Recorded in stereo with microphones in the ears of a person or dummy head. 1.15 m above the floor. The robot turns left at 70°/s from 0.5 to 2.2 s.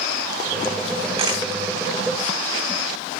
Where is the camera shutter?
30° right (ahead or behind), 3.5 m; by 1.4 s 10° right (ahead or behind), 3.5 m.